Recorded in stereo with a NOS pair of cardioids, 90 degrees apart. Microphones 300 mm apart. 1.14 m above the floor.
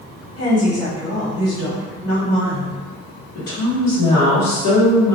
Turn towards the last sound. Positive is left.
turn(degrees=55)